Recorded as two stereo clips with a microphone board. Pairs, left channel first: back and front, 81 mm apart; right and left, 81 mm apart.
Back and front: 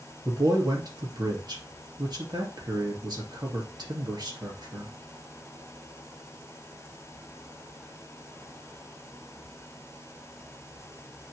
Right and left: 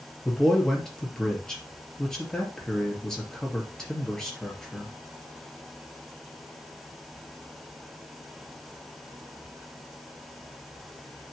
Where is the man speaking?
10° right, 2.5 m.